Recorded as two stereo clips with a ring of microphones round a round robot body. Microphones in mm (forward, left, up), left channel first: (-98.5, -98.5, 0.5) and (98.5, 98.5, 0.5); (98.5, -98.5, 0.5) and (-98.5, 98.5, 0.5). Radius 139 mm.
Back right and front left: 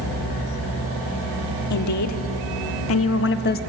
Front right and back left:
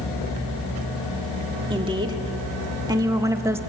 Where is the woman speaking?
150° right, 1.9 m.